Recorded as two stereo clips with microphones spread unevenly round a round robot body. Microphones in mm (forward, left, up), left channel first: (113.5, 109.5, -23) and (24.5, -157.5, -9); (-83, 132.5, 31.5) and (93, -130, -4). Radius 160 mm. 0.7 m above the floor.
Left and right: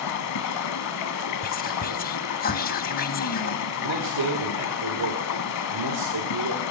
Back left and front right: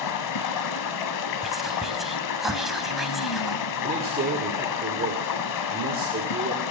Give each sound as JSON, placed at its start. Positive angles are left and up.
{"t": 0.0, "sound": "running water", "azimuth_deg": 105, "distance_m": 1.0}
{"t": 1.4, "sound": "whispering", "azimuth_deg": 25, "distance_m": 0.7}
{"t": 3.8, "sound": "a man speaking", "azimuth_deg": -120, "distance_m": 1.6}